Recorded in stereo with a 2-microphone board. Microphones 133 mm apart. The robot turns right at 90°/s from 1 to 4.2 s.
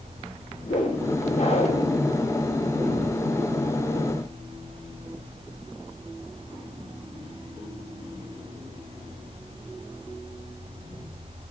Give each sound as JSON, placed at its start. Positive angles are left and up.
{"t": 0.6, "sound": "a whoosh", "azimuth_deg": 80, "distance_m": 6.5}